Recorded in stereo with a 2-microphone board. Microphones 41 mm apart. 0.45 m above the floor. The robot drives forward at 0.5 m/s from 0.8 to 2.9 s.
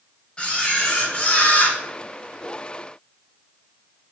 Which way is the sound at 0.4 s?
25° left (ahead or behind).